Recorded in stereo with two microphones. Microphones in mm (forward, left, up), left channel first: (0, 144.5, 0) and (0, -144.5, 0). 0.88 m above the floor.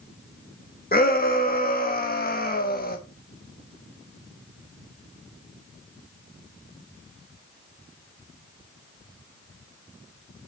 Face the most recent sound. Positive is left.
turn(degrees=35)  # may be behind; listen again after turning